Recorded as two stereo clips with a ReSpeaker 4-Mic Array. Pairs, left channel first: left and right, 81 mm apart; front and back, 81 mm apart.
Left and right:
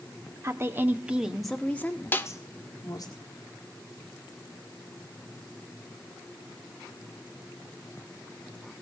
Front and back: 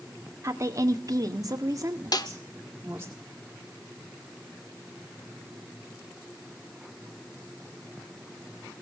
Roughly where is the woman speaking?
Behind right.